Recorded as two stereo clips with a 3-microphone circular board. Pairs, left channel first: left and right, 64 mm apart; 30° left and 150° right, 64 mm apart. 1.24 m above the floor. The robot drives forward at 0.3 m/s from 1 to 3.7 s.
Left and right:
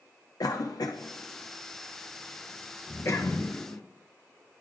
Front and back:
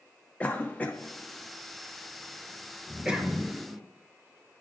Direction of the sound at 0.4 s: 95° left.